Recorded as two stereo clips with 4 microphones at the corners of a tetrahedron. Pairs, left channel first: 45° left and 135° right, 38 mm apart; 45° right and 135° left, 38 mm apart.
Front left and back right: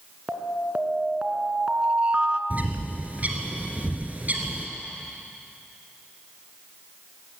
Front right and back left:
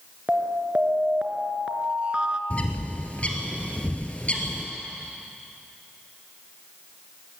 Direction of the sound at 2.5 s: 95° right.